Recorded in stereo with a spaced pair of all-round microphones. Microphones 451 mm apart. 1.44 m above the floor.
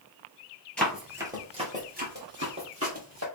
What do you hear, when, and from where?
0.8 s running footsteps: centre (ahead or behind), 1.5 m; by 3.2 s 35° right (ahead or behind), 2.5 m